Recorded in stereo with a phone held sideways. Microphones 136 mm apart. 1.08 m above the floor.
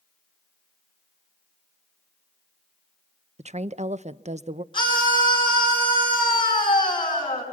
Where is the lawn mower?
I don't hear a lawn mower.